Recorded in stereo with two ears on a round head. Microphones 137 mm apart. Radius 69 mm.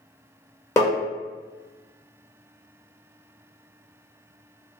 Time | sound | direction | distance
0.8 | tapping | 20° left (ahead or behind) | 0.9 m